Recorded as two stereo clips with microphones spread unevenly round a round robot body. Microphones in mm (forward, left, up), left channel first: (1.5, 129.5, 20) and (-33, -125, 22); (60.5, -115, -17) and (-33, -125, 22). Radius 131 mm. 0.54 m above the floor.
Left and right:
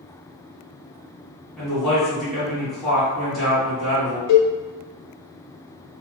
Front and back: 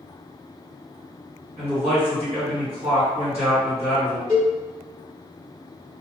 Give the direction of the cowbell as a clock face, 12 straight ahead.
8 o'clock.